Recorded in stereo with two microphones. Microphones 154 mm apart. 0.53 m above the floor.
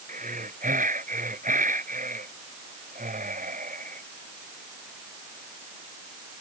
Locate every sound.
0.1 s breathing: 60° right (ahead or behind)